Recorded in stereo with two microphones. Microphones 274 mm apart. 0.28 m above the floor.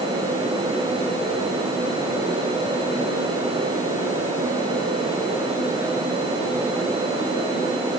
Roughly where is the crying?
No crying in this recording.